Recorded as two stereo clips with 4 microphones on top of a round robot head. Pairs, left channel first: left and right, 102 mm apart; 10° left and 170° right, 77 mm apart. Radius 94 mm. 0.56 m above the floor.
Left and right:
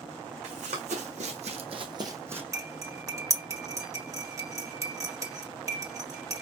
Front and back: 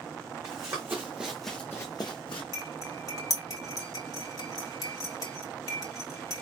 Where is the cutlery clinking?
35° right, 1.7 m.